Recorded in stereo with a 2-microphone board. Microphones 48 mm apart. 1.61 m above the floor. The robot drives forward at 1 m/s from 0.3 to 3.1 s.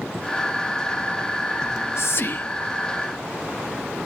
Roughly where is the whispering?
Left.